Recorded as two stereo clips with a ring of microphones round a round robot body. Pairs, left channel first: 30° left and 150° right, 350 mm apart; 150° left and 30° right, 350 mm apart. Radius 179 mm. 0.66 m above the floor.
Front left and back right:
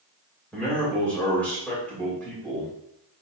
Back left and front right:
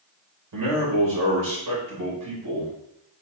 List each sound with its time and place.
0.5 s a man speaking: 55° right, 3 m